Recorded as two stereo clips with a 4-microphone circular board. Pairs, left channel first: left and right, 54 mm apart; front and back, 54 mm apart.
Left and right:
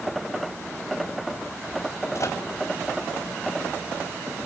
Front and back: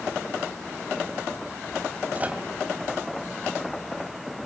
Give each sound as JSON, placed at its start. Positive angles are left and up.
{"t": 2.1, "sound": "a microwave", "azimuth_deg": 115, "distance_m": 3.0}